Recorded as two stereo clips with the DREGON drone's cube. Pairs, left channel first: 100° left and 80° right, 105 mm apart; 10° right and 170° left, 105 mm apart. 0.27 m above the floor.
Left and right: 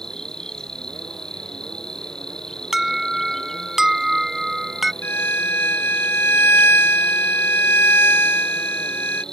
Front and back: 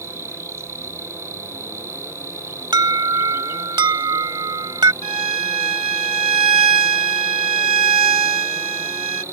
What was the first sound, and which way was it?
An insect, 175° left.